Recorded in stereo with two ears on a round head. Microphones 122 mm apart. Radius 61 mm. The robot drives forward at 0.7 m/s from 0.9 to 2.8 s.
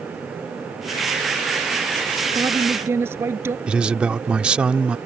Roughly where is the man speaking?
Centre.